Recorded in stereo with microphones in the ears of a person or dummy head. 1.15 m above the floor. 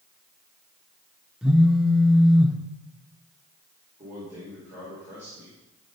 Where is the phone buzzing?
Centre (ahead or behind), 0.5 m.